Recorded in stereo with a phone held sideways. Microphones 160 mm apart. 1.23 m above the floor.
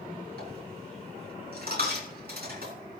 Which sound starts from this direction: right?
A dropped coin, at 0.4 s.